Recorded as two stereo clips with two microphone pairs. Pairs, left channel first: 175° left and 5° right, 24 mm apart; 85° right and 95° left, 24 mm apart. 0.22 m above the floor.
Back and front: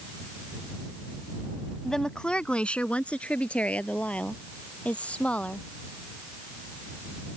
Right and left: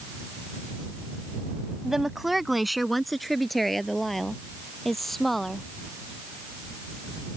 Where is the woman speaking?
135° left; by 5.7 s 170° right.